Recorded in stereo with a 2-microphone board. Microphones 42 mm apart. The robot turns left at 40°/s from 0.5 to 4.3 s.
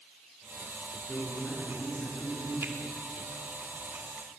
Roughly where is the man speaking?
Behind left.